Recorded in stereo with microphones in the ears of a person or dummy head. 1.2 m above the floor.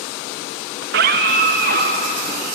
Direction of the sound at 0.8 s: 55° right (ahead or behind).